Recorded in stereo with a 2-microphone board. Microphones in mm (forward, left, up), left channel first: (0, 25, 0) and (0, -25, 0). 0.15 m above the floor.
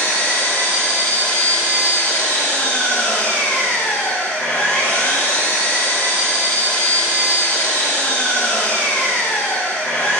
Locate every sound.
0.0 s an engine running: 50° left (ahead or behind), 3.5 m